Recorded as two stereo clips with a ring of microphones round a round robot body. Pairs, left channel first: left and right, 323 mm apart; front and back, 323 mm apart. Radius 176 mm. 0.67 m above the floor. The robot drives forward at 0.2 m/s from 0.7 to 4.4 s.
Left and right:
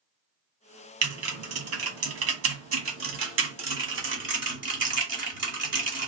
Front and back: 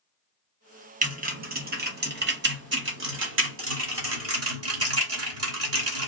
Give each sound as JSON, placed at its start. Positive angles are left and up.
{"t": 1.0, "sound": "typing on a keyboard", "azimuth_deg": -120, "distance_m": 1.5}